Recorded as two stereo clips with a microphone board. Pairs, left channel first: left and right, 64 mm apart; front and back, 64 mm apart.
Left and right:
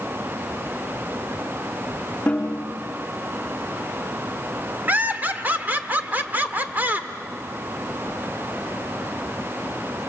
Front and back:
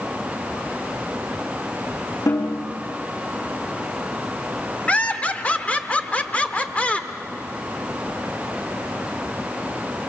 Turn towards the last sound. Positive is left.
turn(degrees=-50)